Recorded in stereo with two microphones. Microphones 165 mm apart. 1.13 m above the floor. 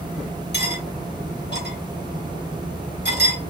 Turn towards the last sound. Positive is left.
turn(degrees=75)  # may be behind; listen again after turning